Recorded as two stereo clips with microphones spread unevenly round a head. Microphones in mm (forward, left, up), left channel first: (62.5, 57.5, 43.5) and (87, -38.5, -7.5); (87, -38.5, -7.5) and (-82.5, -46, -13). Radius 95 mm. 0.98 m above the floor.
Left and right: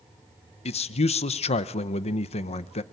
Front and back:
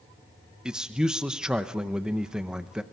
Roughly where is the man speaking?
Left.